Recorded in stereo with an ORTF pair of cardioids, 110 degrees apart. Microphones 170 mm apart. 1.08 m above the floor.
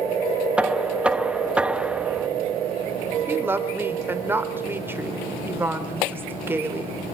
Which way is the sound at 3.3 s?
15° right.